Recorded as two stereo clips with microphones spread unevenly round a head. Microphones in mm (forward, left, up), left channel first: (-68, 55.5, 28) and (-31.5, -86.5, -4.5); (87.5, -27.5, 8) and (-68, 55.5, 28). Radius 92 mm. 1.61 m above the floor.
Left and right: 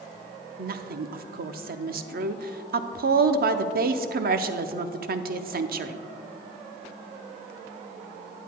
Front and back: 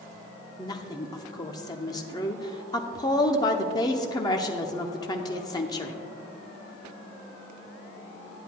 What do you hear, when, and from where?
0.6 s a woman speaking: 100° right, 0.7 m